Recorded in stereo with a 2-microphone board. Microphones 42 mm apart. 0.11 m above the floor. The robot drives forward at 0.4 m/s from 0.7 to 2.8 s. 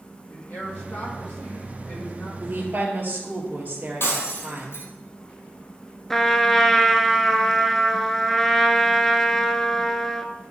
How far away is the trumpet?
About 0.7 m.